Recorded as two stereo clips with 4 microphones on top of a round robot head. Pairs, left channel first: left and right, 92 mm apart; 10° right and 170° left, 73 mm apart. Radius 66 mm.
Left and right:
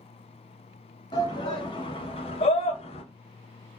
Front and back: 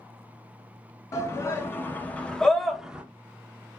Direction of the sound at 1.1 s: 40° left.